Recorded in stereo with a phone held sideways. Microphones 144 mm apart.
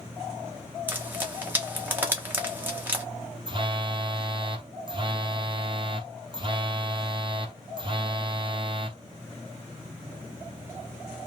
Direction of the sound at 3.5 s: 35° right (ahead or behind).